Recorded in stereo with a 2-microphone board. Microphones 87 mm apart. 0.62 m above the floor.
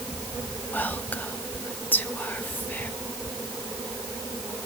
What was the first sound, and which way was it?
Whispering, 20° left (ahead or behind).